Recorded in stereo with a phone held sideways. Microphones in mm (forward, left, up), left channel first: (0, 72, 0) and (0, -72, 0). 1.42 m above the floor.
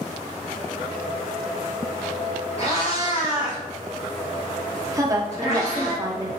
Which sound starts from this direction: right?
A woman speaking, at 4.9 s.